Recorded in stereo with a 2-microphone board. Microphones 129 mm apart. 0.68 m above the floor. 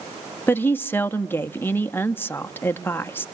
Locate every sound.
0.5 s a woman speaking: 15° left (ahead or behind), 0.6 m